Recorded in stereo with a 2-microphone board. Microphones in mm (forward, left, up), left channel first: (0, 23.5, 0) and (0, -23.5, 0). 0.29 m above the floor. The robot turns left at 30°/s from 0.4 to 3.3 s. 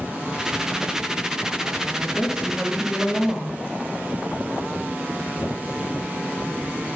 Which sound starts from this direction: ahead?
A woman speaking, at 2.0 s.